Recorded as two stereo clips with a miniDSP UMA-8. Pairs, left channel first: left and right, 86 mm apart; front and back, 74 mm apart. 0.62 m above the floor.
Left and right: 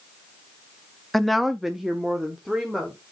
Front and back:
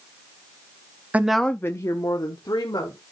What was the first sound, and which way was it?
A woman speaking, 175° left.